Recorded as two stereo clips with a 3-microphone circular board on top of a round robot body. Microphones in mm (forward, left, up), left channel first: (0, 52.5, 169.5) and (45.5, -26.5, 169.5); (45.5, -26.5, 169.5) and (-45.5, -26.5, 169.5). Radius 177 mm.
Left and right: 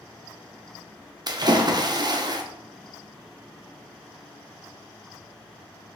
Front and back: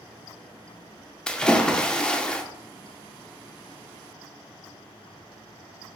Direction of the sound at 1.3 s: 80° right.